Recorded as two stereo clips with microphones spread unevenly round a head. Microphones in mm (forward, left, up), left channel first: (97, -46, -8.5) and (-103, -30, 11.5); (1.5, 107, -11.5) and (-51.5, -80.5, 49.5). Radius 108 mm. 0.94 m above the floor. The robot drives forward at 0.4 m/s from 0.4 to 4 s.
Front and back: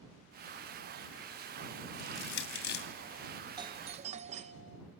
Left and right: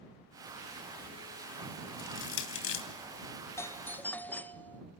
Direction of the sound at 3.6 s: 110° left.